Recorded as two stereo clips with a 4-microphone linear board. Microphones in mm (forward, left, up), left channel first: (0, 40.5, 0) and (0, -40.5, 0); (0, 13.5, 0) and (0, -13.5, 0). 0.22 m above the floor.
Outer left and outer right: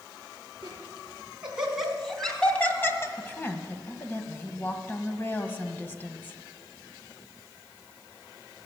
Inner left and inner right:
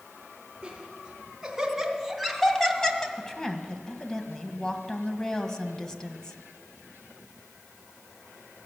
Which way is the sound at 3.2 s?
25° left (ahead or behind).